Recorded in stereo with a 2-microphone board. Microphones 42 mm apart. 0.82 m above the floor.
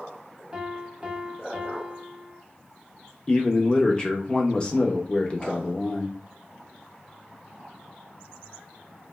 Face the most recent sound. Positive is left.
turn(degrees=20)  # may be behind; listen again after turning